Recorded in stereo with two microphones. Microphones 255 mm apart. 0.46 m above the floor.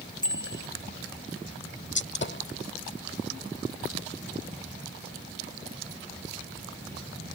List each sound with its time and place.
0.2 s a bicycle bell: 15° left (ahead or behind)
1.9 s a gunshot: 45° left (ahead or behind)